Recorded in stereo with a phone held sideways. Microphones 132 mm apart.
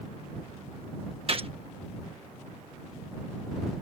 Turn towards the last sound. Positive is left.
turn(degrees=-45)  # may be behind; listen again after turning